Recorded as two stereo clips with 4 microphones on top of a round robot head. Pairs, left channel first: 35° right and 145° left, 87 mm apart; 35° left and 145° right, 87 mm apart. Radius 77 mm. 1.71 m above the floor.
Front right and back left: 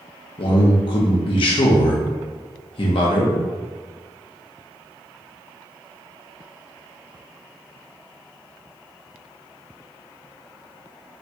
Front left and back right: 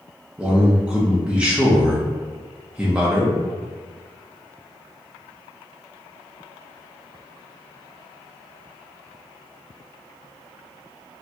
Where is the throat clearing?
No throat clearing in this recording.